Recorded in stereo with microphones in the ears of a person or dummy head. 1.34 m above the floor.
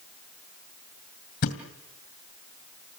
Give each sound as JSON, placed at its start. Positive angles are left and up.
{"t": 1.4, "sound": "a thud", "side_deg": 55, "distance_m": 2.5}